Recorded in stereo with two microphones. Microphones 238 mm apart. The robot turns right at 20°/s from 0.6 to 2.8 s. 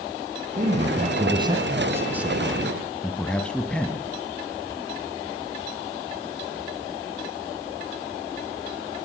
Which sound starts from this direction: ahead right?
A man speaking, at 0.6 s.